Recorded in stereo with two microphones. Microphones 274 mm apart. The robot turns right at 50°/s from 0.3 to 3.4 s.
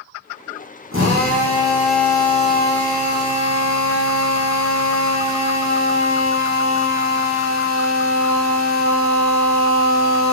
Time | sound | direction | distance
0.9 | a drill | 50° right | 6 m